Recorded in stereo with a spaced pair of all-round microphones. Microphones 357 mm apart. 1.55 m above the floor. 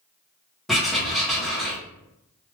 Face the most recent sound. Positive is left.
turn(degrees=0)  # may be behind; listen again after turning